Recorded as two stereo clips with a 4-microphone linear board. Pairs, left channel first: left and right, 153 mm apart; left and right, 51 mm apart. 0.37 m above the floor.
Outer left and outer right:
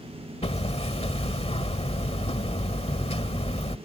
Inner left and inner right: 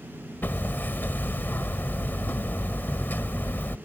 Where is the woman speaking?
I don't hear a woman speaking.